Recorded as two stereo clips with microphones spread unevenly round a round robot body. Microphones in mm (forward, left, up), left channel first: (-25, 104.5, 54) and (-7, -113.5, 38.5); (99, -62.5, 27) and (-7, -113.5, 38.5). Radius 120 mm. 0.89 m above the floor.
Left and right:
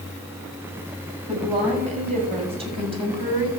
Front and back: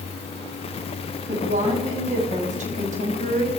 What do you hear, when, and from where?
1.3 s a woman speaking: 145° right, 6 m; by 3.5 s 155° right, 3 m